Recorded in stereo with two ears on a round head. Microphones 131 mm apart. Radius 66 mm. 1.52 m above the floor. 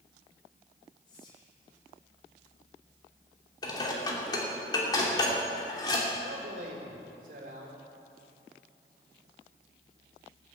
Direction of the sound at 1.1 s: 30° left (ahead or behind).